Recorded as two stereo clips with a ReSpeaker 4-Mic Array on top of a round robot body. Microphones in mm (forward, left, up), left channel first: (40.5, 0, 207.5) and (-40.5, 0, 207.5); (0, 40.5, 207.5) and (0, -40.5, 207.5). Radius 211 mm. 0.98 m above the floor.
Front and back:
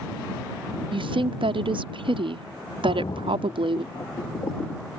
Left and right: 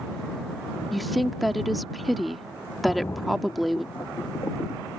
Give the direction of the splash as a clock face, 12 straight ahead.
11 o'clock.